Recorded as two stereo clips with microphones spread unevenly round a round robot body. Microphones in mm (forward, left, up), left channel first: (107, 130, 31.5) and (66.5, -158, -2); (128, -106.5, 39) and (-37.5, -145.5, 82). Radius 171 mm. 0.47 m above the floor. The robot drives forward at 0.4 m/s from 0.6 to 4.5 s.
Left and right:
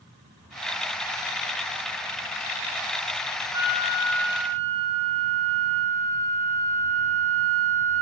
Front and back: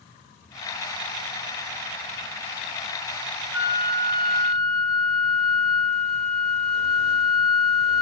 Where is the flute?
145° right, 1.2 m; by 8.0 s 155° right, 1.5 m.